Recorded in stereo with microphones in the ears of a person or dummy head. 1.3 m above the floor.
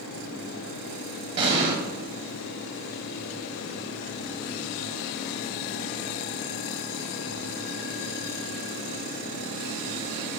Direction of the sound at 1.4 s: 35° right (ahead or behind).